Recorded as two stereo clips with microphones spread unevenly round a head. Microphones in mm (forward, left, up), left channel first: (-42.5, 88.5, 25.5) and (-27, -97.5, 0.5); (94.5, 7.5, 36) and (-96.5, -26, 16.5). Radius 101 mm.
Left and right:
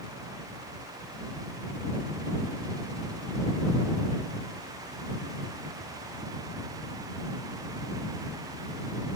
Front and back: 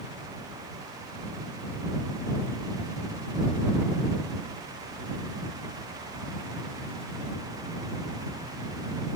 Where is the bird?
No bird in this recording.